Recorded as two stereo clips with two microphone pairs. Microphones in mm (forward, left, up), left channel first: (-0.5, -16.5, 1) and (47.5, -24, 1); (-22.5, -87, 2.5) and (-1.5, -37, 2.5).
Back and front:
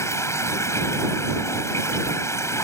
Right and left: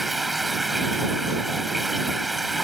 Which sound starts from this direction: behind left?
Running water, at 0.0 s.